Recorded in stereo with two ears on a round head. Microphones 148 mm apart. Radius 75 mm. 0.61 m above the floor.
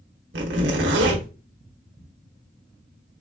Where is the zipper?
70° right (ahead or behind), 1.1 m.